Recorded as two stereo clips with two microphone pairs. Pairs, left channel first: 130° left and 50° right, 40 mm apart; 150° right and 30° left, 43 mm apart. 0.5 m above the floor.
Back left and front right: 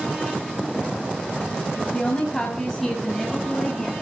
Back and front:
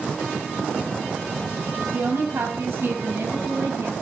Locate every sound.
1.9 s a woman speaking: 60° left, 3.5 m; by 3.9 s 40° left, 6 m